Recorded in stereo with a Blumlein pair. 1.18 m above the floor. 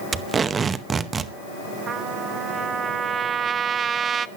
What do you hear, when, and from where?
0.1 s tape being pulled: 15° right, 0.8 m
1.9 s a trumpet: 20° right, 0.7 m